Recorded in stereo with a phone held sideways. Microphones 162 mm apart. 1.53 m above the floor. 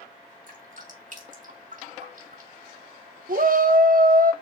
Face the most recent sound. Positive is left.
turn(degrees=-60)  # may be behind; listen again after turning